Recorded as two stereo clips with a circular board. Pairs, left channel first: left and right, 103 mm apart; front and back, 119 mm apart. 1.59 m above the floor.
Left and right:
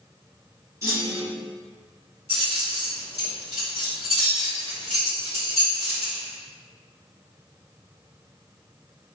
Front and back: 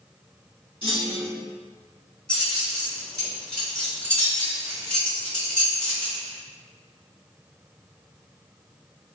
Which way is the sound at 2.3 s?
85° right.